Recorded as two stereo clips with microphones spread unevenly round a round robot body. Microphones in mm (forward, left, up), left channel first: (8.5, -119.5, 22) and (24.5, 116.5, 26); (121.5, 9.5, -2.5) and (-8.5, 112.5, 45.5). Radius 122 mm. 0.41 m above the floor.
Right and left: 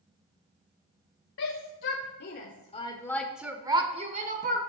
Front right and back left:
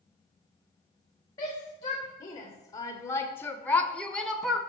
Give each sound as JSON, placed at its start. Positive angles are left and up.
{"t": 1.4, "sound": "a shout", "azimuth_deg": -95, "distance_m": 1.7}